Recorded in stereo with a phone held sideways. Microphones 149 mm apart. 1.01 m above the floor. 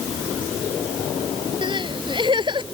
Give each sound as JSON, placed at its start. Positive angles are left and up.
{"t": 1.6, "sound": "crying", "side_deg": -35}